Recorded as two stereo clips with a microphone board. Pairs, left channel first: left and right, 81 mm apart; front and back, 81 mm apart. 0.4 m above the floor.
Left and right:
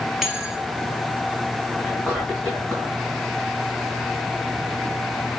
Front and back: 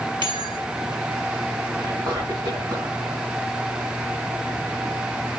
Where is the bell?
175° right, 2.5 m.